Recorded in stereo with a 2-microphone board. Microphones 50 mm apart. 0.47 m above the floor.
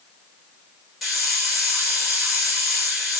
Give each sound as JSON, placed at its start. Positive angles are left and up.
{"t": 1.0, "sound": "a hiss", "side_deg": 0, "distance_m": 2.0}